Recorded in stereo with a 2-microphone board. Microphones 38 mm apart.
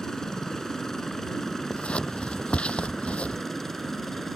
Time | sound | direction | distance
0.0 | a helicopter | 15° left (ahead or behind) | ?
1.7 | scissors | 30° left (ahead or behind) | ?